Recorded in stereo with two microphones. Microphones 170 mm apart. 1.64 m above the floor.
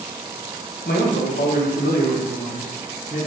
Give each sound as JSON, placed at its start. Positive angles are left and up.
{"t": 0.8, "sound": "a man speaking", "side_deg": 70, "distance_m": 1.0}